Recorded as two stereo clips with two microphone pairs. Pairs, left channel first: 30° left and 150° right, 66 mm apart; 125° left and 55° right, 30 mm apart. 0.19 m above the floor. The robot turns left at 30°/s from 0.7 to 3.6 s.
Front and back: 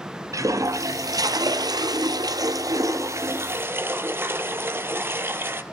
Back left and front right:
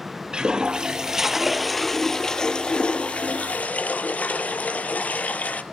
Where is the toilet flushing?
115° right, 0.8 m; by 5.6 s 160° left, 0.8 m.